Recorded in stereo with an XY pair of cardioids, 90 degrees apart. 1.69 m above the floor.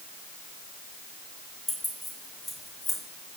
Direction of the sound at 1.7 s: 15° left.